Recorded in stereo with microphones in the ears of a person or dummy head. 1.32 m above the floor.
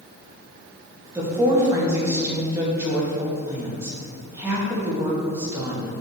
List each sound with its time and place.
1.1 s a woman speaking: 15° right (ahead or behind), 2 m